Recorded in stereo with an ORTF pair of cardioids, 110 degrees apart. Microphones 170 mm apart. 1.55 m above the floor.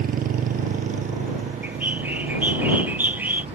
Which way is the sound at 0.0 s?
55° right.